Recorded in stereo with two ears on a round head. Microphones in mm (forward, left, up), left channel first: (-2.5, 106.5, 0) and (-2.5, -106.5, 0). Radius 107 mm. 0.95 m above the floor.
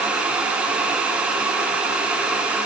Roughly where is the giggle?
I don't hear a giggle.